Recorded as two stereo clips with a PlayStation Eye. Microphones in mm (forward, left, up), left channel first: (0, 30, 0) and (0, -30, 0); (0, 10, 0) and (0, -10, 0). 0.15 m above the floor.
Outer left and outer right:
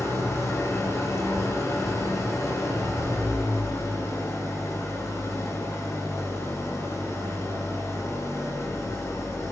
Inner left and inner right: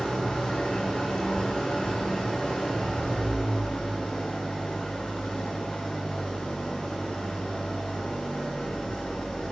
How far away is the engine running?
About 8 m.